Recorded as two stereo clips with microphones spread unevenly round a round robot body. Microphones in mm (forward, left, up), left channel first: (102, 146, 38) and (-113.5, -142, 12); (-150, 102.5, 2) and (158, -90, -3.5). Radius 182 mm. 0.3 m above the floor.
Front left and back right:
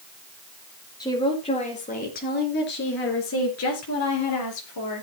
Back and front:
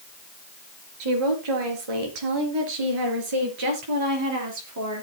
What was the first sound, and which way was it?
A woman speaking, 25° right.